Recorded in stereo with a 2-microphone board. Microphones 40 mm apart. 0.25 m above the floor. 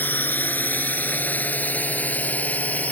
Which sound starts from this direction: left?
A drone, at 0.0 s.